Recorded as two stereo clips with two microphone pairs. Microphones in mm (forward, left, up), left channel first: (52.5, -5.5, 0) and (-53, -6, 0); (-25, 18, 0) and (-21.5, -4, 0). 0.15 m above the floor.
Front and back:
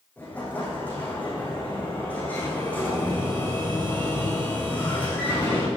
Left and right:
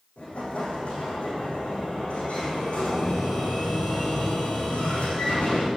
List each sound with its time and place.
0.2 s an explosion: 75° left, 7.5 m